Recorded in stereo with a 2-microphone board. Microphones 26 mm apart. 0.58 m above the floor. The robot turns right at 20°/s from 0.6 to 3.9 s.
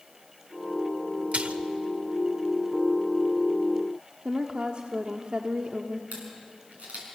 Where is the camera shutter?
80° right, 6 m.